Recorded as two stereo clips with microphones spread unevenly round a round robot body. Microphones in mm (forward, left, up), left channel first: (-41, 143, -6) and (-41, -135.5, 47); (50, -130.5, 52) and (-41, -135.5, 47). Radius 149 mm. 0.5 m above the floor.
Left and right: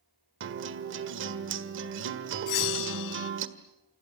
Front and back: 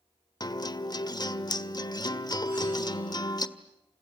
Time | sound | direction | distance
0.4 | a guitar | 35° right | 1.7 m
2.5 | a bell | 100° left | 0.5 m